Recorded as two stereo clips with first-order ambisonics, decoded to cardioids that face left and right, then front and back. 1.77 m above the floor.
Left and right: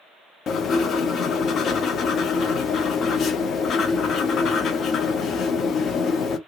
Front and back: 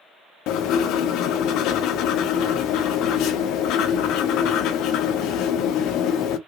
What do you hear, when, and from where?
0.5 s writing: 35° left, 0.6 m